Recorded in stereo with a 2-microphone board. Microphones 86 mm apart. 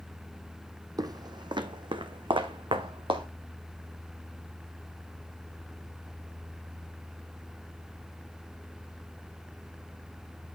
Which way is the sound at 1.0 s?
50° right (ahead or behind).